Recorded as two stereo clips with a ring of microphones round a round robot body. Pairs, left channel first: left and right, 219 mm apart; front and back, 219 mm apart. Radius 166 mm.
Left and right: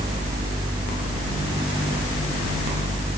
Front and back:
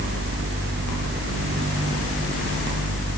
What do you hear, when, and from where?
Only background noise.